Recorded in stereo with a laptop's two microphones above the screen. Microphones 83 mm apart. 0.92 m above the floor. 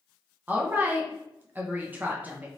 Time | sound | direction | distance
0.5 | a woman speaking | 20° right (ahead or behind) | 0.6 m